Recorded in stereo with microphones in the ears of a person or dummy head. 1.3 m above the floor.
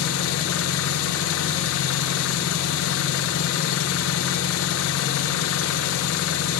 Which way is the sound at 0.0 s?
85° left.